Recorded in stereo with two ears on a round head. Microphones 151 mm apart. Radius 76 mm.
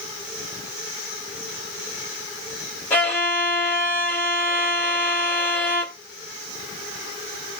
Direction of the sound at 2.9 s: 15° left (ahead or behind).